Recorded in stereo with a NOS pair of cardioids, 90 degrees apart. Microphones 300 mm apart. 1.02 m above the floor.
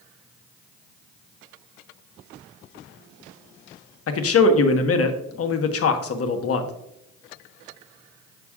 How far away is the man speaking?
About 1.1 m.